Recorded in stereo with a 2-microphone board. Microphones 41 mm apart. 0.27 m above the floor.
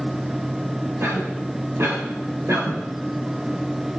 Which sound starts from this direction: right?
A cough, at 1.0 s.